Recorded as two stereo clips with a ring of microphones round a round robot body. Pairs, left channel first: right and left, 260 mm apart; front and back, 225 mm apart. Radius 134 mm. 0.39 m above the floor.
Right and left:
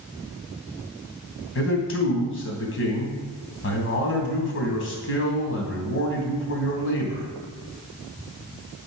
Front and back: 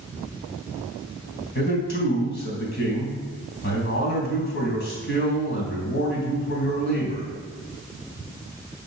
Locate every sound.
1.6 s a man speaking: 50° right, 3 m